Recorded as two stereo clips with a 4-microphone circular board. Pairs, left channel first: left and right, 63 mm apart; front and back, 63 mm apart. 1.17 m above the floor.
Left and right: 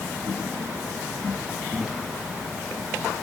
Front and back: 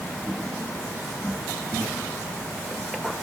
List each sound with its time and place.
Only background noise.